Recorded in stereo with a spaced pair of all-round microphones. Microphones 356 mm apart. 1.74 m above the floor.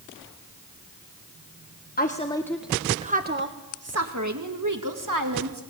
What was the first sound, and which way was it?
A woman speaking, 25° left (ahead or behind).